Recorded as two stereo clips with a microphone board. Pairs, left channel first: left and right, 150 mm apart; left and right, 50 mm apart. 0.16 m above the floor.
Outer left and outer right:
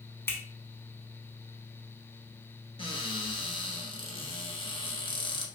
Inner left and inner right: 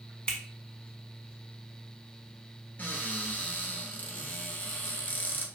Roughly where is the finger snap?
Centre.